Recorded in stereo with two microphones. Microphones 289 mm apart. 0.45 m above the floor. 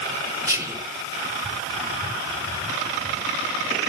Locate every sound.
0.5 s whispering: 10° right (ahead or behind), 0.8 m